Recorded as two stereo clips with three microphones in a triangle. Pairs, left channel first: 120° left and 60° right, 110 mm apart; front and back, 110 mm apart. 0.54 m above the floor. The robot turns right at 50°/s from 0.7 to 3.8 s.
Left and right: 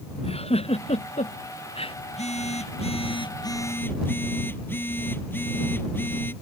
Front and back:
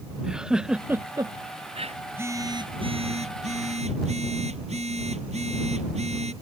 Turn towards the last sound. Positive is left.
turn(degrees=-170)